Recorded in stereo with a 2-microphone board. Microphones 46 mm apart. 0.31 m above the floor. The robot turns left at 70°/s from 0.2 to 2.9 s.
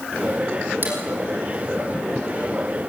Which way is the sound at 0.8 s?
45° right (ahead or behind).